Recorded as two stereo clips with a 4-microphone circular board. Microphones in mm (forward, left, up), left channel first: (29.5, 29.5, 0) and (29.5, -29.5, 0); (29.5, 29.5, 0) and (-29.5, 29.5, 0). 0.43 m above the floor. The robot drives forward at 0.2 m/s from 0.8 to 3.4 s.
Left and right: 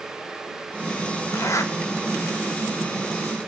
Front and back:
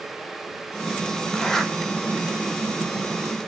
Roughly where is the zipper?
Left.